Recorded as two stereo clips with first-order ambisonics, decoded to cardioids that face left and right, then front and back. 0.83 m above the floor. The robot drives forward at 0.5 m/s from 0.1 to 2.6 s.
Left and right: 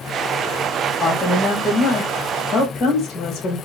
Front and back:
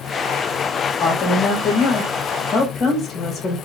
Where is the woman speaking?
20° left, 1.3 m; by 3.6 s 50° left, 0.8 m.